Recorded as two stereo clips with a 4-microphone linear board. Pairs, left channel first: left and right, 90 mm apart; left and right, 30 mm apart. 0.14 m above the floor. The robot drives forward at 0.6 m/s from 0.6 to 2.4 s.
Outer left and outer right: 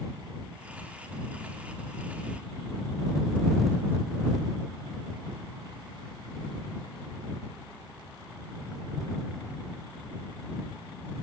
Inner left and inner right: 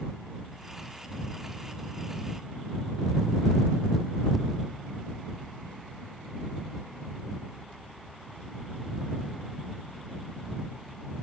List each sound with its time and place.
Only background noise.